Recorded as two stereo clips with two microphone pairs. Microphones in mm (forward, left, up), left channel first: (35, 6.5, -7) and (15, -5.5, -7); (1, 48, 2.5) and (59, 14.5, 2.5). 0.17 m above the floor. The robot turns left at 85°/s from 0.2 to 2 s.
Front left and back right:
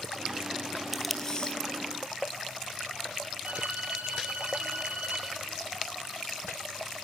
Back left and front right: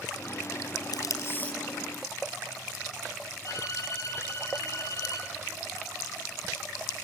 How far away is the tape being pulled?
About 1.6 m.